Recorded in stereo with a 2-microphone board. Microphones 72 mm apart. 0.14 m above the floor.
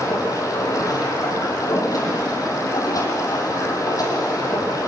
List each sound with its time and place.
0.0 s running water: 55° left (ahead or behind), 5 m